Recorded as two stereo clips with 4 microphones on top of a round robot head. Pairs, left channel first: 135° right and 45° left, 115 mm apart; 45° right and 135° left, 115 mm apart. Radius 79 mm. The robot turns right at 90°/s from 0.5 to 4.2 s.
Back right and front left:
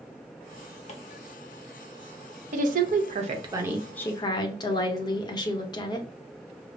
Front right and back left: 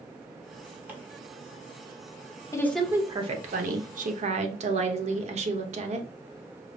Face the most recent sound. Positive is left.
turn(degrees=170)